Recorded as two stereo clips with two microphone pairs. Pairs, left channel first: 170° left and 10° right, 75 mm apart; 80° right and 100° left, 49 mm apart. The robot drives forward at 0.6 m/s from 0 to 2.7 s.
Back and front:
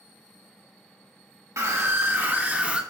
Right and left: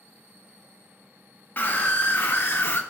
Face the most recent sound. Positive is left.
turn(degrees=-80)